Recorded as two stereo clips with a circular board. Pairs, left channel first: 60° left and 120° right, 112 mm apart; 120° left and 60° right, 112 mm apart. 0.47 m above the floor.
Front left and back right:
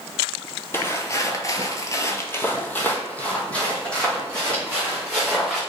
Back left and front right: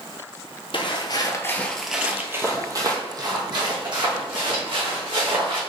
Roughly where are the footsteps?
Behind left.